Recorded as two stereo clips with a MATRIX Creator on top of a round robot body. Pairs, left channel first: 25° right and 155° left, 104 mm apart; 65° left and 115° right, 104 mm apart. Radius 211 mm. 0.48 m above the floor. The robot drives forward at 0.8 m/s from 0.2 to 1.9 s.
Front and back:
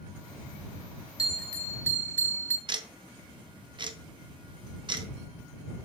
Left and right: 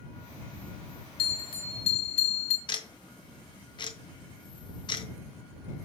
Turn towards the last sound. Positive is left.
turn(degrees=115)